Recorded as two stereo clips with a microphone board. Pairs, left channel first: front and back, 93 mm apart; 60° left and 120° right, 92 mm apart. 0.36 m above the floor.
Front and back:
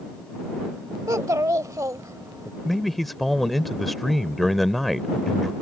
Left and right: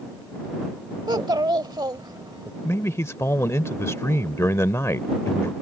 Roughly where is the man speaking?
Left.